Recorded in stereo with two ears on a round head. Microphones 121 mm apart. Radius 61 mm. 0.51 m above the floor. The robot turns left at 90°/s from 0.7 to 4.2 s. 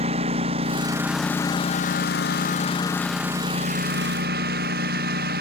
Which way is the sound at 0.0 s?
45° right (ahead or behind).